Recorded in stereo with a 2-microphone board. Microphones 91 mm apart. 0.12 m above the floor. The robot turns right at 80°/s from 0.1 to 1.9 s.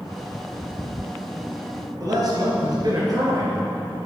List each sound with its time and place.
2.0 s a man speaking: 45° right (ahead or behind), 2 m